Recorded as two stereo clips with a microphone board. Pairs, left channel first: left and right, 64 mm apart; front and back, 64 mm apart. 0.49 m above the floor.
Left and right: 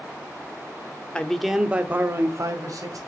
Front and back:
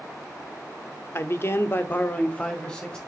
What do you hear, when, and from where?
1.1 s a man speaking: 20° left, 0.9 m; by 3.0 s 80° right, 1.6 m